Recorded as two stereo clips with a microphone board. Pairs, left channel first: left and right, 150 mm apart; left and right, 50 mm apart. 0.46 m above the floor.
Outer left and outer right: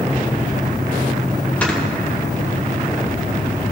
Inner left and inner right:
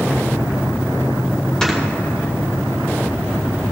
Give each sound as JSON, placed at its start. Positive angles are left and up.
{"t": 1.6, "sound": "snoring", "side_deg": 10, "distance_m": 1.8}